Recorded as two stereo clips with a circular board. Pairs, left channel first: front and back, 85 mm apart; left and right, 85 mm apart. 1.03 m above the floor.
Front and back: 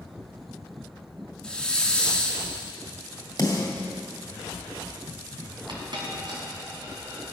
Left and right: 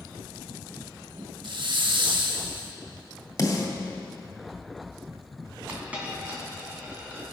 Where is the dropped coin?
160° right, 2.5 m.